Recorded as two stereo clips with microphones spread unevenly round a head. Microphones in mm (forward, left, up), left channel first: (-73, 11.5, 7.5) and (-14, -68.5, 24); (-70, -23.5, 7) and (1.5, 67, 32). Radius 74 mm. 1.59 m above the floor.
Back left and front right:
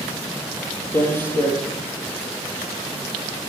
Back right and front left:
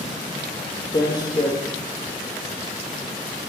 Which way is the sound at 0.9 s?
170° right.